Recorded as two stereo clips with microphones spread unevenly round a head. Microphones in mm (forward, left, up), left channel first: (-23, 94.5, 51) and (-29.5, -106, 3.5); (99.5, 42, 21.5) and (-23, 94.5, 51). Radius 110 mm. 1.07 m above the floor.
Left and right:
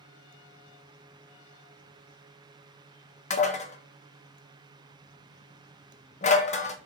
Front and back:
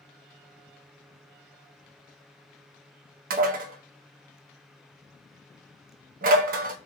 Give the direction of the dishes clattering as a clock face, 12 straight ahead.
7 o'clock.